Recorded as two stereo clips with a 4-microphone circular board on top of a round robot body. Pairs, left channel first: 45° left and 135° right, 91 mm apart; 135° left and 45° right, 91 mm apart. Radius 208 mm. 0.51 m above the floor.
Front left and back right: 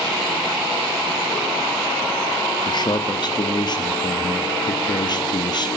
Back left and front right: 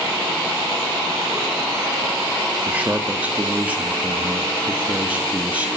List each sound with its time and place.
2.6 s a man speaking: 25° left, 1.4 m